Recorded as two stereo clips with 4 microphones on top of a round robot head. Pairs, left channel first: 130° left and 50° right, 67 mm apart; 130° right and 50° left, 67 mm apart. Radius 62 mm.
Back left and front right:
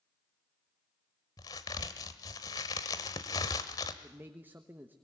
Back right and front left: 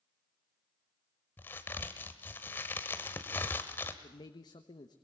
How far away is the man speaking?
About 1.2 m.